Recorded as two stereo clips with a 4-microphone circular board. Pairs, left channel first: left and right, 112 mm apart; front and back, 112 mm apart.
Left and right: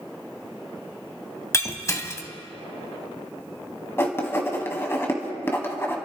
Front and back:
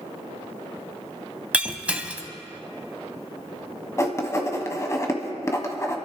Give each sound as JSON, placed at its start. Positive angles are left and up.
{"t": 1.5, "sound": "breaking glass", "azimuth_deg": 115, "distance_m": 0.9}
{"t": 4.0, "sound": "writing", "azimuth_deg": 40, "distance_m": 1.5}